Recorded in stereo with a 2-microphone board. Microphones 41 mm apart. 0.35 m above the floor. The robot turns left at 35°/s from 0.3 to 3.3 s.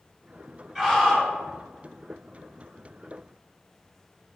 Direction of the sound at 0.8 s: 10° left (ahead or behind).